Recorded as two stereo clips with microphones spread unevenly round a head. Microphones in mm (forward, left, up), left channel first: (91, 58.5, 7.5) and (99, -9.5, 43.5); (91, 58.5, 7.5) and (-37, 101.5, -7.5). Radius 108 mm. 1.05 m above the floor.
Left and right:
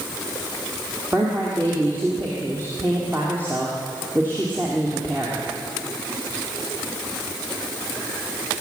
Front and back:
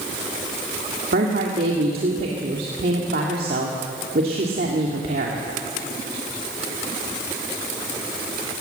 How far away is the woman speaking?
About 2 m.